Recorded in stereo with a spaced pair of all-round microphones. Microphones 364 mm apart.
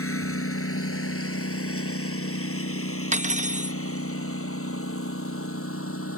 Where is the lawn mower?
35° left (ahead or behind).